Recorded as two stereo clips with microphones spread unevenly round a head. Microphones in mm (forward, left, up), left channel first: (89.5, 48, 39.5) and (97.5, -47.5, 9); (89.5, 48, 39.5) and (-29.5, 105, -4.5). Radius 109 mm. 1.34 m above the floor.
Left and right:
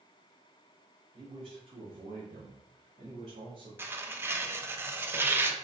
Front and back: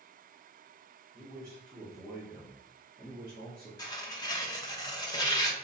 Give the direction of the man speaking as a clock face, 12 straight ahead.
5 o'clock.